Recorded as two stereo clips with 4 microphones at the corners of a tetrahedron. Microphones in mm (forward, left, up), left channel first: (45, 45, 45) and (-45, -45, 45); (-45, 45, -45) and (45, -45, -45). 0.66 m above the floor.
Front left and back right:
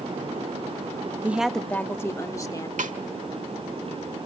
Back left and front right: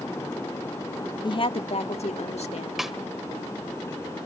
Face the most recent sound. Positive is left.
turn(degrees=-130)